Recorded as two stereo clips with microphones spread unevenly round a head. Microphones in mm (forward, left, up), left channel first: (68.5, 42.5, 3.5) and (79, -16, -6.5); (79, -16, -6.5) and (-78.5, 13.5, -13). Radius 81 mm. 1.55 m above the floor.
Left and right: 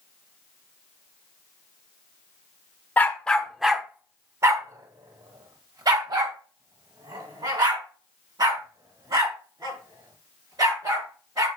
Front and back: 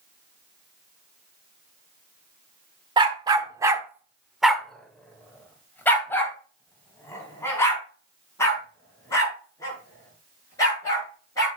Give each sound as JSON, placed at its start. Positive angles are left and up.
{"t": 3.0, "sound": "a dog barking", "azimuth_deg": 120, "distance_m": 1.4}